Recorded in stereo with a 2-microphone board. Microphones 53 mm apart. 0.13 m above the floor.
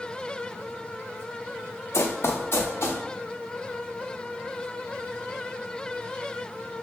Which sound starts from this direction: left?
Running footsteps, at 1.9 s.